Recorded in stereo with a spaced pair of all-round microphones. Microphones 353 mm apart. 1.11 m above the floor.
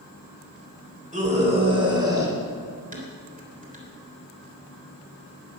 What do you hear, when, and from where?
1.1 s a scream: 20° right (ahead or behind), 4 m; by 2.4 s 10° right (ahead or behind), 4.5 m
2.9 s dishes clattering: 25° right (ahead or behind), 3.5 m